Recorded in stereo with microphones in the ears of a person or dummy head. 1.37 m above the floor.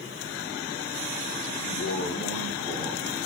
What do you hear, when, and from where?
1.6 s a man speaking: 60° left (ahead or behind), 0.7 m; by 3.1 s 10° right (ahead or behind), 1.1 m